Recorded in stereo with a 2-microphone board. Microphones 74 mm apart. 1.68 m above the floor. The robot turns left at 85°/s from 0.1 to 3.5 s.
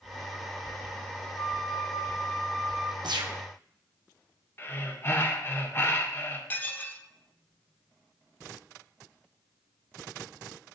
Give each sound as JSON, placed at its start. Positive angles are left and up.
{"t": 1.4, "sound": "a flute", "azimuth_deg": 110, "distance_m": 1.5}
{"t": 3.0, "sound": "a gunshot", "azimuth_deg": -70, "distance_m": 1.1}
{"t": 4.6, "sound": "breathing", "side_deg": 30, "distance_m": 1.2}
{"t": 6.5, "sound": "dishes clattering", "side_deg": 25, "distance_m": 0.9}